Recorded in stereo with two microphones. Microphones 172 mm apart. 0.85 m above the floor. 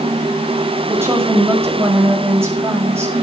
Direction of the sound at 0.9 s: 15° right (ahead or behind).